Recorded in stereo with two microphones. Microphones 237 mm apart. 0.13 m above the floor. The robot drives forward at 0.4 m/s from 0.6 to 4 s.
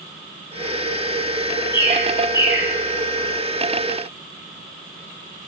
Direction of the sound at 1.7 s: 15° left (ahead or behind).